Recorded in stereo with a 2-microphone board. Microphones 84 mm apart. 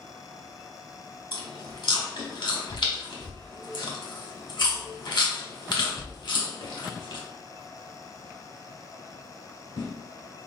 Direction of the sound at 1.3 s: 70° left (ahead or behind).